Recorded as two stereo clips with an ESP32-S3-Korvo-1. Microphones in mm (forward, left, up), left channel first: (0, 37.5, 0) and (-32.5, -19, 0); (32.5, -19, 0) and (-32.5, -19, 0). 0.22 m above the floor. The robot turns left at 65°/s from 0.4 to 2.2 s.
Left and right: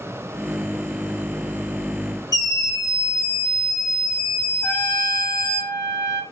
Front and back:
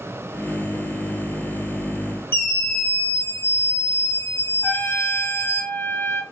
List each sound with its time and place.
2.3 s a scream: 50° left, 3.5 m
4.6 s a trumpet: 45° left, 1.9 m